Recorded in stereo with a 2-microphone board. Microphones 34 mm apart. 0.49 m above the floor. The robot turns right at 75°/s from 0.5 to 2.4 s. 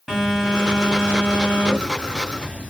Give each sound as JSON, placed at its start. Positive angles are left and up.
{"t": 0.1, "sound": "a phone buzzing", "azimuth_deg": -165, "distance_m": 4.0}